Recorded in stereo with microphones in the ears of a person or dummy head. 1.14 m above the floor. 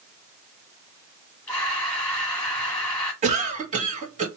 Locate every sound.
1.5 s breathing: 10° left (ahead or behind), 1.5 m
3.2 s a cough: 30° right (ahead or behind), 1.8 m